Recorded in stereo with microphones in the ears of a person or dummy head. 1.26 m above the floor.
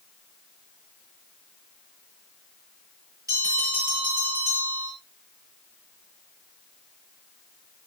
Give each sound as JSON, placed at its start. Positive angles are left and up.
{"t": 3.3, "sound": "a bell", "side_deg": -25, "distance_m": 10.0}